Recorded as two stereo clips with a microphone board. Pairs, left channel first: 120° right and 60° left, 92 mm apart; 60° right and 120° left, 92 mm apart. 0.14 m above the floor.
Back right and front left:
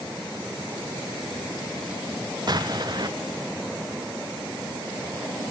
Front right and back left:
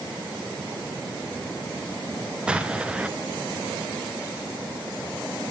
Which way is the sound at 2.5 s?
45° left.